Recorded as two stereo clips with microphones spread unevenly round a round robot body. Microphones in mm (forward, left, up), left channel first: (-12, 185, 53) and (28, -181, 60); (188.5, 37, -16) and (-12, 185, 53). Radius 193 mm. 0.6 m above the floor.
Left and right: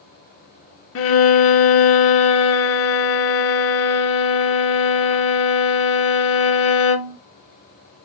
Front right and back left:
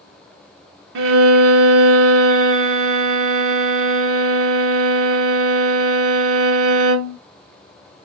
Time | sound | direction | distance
0.9 | a violin | 150° left | 0.6 m